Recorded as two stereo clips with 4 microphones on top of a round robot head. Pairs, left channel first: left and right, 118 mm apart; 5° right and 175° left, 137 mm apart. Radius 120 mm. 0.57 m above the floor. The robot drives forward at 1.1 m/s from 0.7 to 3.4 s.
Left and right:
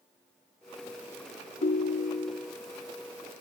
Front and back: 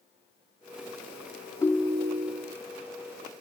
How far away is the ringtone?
About 0.6 m.